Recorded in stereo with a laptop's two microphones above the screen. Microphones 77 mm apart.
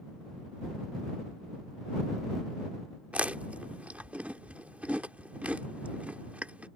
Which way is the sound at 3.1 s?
15° right (ahead or behind).